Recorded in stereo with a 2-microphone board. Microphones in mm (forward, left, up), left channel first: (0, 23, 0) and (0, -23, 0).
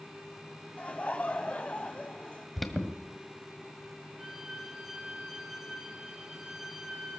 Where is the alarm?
Centre (ahead or behind), 1.4 m.